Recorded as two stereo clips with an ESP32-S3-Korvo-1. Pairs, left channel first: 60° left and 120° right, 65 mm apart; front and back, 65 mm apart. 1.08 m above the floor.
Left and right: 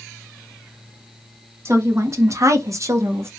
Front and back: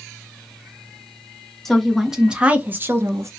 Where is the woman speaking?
85° right, 1.2 m; by 3.3 s 155° right, 1.0 m.